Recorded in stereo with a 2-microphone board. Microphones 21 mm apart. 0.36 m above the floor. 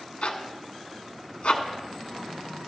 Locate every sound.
0.2 s a zipper: 80° left, 1.4 m